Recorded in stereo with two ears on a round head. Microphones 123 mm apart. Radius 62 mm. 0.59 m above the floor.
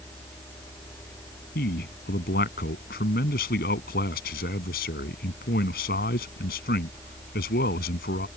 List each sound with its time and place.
1.6 s a man speaking: 75° left (ahead or behind)